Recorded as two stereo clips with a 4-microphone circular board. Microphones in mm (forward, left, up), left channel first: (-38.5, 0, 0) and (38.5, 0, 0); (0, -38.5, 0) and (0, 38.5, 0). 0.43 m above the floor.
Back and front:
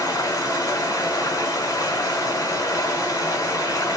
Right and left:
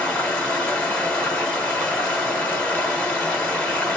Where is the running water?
155° right, 1.0 m.